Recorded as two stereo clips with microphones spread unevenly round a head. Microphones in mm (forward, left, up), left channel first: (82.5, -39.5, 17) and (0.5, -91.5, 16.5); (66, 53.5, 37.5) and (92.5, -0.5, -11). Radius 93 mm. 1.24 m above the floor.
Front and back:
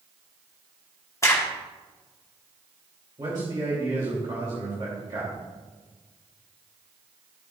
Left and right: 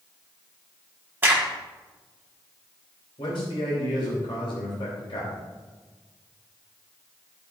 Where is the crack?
25° right, 1.9 m.